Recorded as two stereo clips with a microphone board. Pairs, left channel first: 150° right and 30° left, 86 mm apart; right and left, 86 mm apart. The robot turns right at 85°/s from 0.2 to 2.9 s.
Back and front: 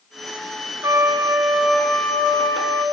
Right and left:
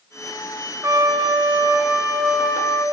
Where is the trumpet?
55° left, 0.6 m; by 2.9 s 135° right, 0.6 m.